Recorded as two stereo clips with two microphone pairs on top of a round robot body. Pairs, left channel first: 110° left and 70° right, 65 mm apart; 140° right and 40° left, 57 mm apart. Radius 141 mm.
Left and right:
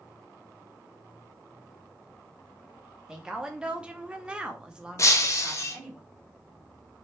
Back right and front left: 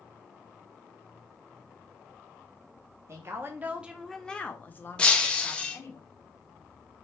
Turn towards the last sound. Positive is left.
turn(degrees=150)